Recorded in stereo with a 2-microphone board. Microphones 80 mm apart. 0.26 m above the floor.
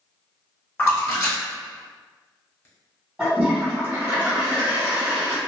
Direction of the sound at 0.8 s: 35° left (ahead or behind).